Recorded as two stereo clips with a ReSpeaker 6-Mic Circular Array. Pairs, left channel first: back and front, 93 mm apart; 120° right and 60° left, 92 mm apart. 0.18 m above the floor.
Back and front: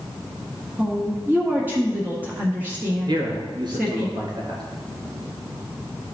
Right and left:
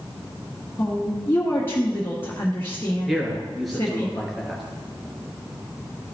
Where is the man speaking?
30° right, 2.5 m.